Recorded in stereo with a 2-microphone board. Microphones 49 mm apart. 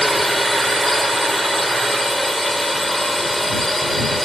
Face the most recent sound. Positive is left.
turn(degrees=5)  # may be behind; listen again after turning